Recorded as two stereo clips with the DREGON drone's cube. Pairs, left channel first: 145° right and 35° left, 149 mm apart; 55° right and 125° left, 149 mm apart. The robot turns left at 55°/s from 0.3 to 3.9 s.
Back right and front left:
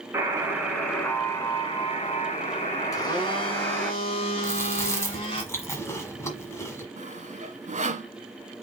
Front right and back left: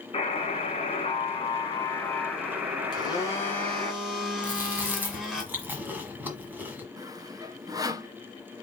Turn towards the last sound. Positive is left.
turn(degrees=60)